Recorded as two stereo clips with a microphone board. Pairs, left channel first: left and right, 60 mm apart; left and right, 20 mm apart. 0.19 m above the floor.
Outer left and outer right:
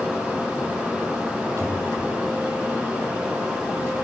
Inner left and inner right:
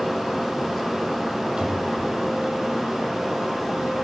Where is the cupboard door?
60° right (ahead or behind), 8 m.